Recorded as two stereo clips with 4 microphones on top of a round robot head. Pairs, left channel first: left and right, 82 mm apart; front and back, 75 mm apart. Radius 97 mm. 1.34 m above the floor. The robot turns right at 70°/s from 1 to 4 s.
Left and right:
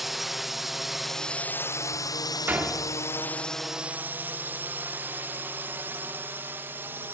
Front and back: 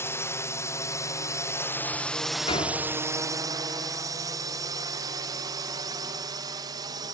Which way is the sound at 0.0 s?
5° right.